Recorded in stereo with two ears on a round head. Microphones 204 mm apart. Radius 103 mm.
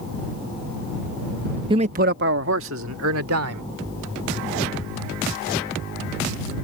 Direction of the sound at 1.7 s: 20° right (ahead or behind).